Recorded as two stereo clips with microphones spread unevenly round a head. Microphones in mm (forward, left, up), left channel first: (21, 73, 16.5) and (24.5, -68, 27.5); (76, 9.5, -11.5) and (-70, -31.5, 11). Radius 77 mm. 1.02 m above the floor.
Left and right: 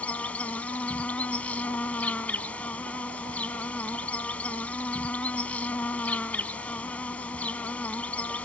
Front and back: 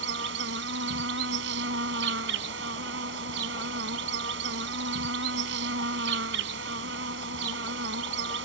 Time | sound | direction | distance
0.0 | an insect | 175° left | ?